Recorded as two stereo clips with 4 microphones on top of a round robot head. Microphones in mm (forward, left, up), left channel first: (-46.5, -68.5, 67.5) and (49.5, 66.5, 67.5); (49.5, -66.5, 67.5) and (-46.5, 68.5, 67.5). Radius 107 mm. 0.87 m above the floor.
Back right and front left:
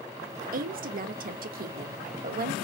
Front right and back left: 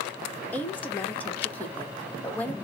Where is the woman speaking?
25° left, 1.1 m.